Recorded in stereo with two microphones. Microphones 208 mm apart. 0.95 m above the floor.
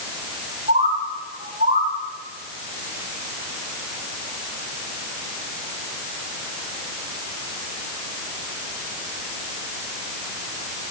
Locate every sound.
0.7 s a bird: 40° right (ahead or behind), 9.5 m